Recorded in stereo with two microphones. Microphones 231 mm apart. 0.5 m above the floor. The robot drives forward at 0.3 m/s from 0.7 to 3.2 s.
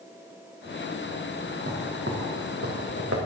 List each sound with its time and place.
1.6 s footsteps: 65° right (ahead or behind), 3.5 m